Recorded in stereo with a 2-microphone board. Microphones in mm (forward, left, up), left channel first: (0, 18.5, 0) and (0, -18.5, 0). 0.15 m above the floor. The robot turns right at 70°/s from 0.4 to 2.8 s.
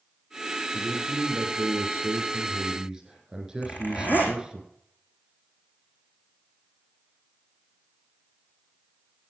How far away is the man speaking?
About 6.5 m.